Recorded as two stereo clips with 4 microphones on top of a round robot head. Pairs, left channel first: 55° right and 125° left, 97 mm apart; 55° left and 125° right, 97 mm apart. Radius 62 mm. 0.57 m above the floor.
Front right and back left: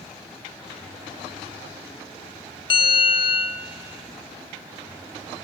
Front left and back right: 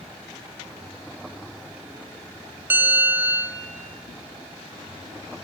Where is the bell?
55° right, 0.9 m.